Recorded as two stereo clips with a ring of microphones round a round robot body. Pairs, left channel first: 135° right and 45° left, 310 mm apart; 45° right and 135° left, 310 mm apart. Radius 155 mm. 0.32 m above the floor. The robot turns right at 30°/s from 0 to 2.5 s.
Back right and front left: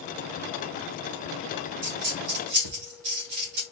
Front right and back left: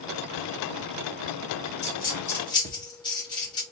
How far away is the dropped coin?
About 2 m.